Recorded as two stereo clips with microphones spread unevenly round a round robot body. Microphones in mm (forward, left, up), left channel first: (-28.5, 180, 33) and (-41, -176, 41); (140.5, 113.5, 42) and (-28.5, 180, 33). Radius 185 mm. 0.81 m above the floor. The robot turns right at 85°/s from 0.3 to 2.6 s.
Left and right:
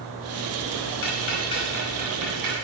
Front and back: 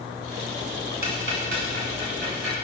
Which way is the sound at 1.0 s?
120° left.